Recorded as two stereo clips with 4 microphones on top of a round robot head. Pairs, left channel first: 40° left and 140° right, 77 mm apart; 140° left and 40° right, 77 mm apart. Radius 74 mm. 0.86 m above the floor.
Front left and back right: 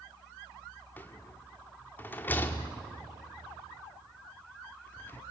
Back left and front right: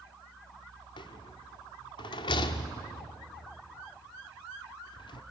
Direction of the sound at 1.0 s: 110° left.